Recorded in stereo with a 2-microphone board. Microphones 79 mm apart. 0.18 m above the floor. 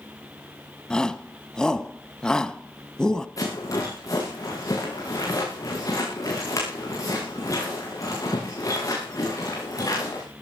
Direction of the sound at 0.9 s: 10° left (ahead or behind).